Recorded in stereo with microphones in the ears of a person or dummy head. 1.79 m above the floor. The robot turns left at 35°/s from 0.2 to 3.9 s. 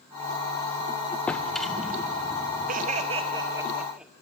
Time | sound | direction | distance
1.3 | a drawer | 15° left | 1.0 m
2.7 | laughter | 130° right | 1.4 m